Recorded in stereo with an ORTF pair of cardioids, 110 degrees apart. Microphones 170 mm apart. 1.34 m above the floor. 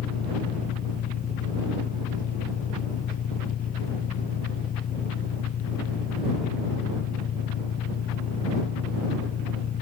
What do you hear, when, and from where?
0.0 s an engine running: 55° left